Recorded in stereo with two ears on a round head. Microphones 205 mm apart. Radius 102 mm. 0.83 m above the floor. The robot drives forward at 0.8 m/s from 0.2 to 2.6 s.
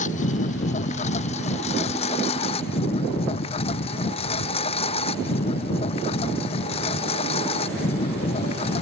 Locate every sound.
0.0 s a lawn mower: 35° left (ahead or behind); by 8.8 s 25° left (ahead or behind)